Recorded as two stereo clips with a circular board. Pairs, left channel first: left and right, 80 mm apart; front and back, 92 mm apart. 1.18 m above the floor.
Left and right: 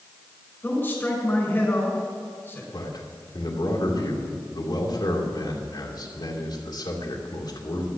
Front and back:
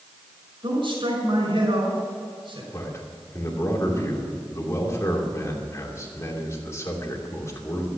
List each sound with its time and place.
0.6 s a man speaking: 155° left, 5.5 m
2.7 s a man speaking: 60° left, 2.5 m